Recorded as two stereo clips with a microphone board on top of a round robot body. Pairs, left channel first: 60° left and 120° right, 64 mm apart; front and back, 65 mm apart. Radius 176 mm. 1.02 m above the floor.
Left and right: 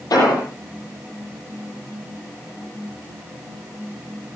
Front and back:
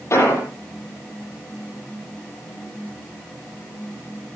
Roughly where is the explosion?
Ahead left.